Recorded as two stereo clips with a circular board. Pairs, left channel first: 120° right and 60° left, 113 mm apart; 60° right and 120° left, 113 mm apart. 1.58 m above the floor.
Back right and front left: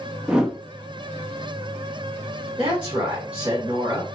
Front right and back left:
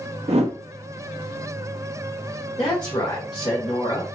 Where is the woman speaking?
10° right, 1.7 m.